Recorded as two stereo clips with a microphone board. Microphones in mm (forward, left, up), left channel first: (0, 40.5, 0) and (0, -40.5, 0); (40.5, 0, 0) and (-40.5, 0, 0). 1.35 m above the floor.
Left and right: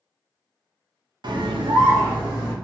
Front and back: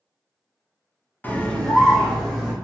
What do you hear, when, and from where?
1.2 s a scream: 70° right, 0.5 m; by 2.5 s 90° right, 1.3 m